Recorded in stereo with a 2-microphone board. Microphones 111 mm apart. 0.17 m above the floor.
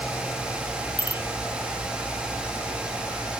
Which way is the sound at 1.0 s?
45° left (ahead or behind).